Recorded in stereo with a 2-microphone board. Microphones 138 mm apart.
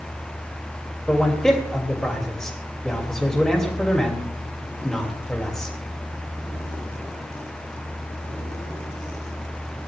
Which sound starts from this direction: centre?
A man speaking, at 1.1 s.